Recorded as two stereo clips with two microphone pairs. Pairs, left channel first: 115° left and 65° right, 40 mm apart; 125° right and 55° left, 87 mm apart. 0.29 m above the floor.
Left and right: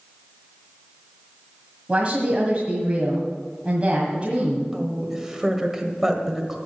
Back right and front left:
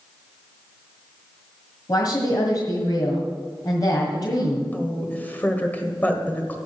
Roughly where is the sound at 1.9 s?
Behind right.